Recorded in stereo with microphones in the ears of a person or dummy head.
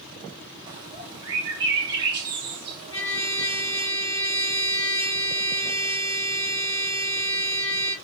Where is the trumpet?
15° left (ahead or behind), 3.5 m.